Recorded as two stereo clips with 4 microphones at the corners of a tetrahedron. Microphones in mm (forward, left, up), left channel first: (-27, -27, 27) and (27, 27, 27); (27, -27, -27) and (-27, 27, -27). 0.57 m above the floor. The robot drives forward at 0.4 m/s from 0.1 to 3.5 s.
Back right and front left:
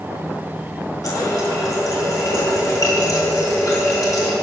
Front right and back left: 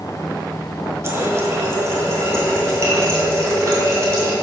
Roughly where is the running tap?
Behind.